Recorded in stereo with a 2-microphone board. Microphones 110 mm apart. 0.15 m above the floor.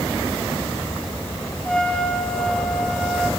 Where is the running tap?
No running tap in this recording.